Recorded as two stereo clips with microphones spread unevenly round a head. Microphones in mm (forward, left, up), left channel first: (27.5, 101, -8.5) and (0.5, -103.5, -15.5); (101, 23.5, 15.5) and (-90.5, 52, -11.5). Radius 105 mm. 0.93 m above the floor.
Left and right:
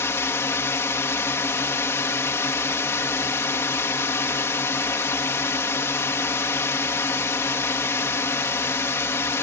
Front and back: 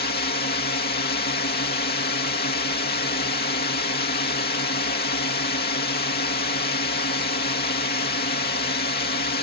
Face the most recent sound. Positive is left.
turn(degrees=10)